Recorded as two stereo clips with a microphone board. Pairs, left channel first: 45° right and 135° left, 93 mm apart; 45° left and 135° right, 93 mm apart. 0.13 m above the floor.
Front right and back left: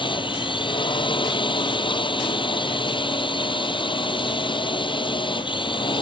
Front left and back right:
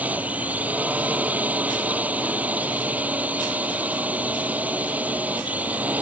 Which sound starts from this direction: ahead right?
A drone, at 0.0 s.